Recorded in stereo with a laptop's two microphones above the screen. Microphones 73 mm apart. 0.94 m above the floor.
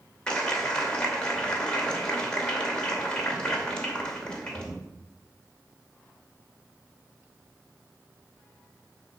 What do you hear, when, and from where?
0.3 s a clap: 10° left (ahead or behind), 2.5 m